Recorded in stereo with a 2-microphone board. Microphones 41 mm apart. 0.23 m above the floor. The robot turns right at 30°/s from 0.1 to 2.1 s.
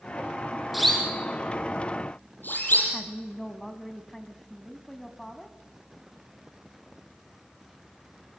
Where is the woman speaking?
10° left (ahead or behind), 1.4 m.